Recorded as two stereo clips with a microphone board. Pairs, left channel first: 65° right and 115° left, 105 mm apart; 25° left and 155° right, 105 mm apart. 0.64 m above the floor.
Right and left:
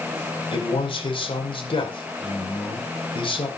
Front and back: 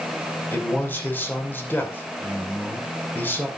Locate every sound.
0.5 s a man speaking: 45° right, 2.5 m